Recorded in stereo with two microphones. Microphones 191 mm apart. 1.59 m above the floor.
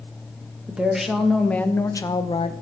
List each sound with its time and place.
0.7 s a woman speaking: 5° right (ahead or behind), 1.5 m; by 2.5 s 35° left (ahead or behind), 0.8 m